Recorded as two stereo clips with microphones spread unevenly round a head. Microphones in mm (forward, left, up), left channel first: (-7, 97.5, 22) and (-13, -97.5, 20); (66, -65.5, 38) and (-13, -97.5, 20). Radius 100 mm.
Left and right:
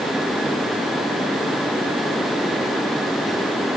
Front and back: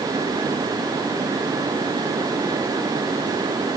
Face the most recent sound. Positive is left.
No sound to turn to.